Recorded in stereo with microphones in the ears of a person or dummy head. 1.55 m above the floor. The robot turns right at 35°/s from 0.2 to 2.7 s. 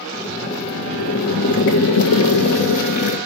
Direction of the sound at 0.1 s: 20° left.